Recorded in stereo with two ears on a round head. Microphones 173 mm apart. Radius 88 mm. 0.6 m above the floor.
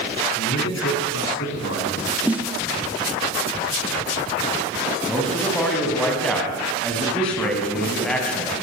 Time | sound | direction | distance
0.4 | a man speaking | 65° left (ahead or behind) | 7.5 m
2.3 | a snare drum | 5° right (ahead or behind) | 1.0 m
5.1 | a man speaking | 5° left (ahead or behind) | 6 m